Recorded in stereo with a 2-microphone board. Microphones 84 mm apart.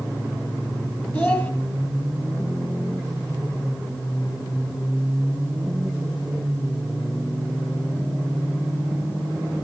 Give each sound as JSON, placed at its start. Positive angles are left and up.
{"t": 1.1, "sound": "a child speaking", "side_deg": 25, "distance_m": 1.9}